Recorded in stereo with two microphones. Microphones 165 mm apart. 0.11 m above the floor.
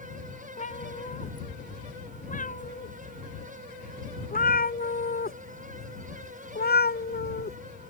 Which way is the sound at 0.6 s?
50° left (ahead or behind).